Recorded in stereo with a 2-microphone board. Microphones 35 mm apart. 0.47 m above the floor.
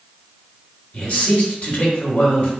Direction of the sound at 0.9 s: 45° left (ahead or behind).